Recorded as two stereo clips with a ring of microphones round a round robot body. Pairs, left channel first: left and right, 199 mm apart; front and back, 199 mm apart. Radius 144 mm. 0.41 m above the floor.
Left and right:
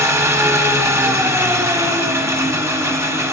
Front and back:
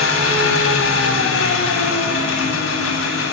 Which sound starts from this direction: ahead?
An engine running, at 0.0 s.